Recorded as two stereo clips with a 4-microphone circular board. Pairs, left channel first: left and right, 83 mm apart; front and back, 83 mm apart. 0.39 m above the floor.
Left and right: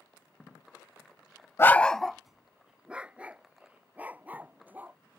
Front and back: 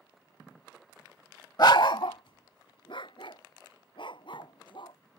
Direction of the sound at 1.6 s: 35° left.